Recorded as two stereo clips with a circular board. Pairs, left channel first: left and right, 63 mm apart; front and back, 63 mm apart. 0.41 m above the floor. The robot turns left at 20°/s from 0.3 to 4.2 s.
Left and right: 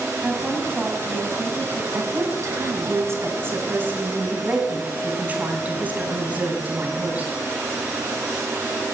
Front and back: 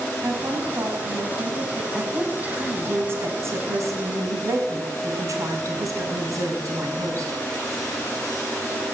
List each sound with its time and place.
0.2 s a woman speaking: 145° right, 2.5 m; by 1.8 s straight behind, 2.5 m
1.9 s a woman speaking: 105° right, 2.5 m; by 7.4 s 150° right, 2.5 m